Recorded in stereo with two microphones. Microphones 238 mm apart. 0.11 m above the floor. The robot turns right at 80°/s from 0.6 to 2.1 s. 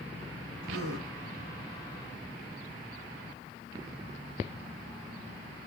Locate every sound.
0.6 s a gasp: 125° right, 4.5 m; by 1.1 s 90° right, 4.5 m